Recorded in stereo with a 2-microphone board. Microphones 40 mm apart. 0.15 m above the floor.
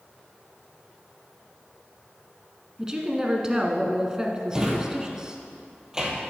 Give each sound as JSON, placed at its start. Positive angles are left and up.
{"t": 2.8, "sound": "a woman speaking", "side_deg": -15, "distance_m": 1.3}
{"t": 4.5, "sound": "a drawer", "side_deg": -15, "distance_m": 1.6}